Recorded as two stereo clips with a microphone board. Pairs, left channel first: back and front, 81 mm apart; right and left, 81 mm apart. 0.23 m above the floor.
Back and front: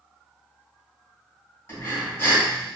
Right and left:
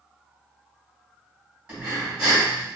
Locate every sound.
1.7 s breathing: 160° left, 1.9 m